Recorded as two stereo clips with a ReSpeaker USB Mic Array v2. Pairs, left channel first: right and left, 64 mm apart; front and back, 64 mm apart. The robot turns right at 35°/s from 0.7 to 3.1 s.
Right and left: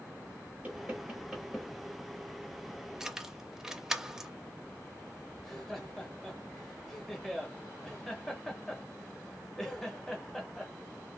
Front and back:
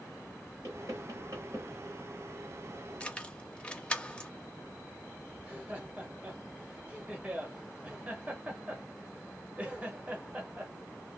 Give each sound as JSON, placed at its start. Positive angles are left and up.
{"t": 0.6, "sound": "knocking", "azimuth_deg": 150, "distance_m": 2.5}
{"t": 3.0, "sound": "keys jangling", "azimuth_deg": 20, "distance_m": 0.5}
{"t": 5.4, "sound": "laughter", "azimuth_deg": -165, "distance_m": 0.9}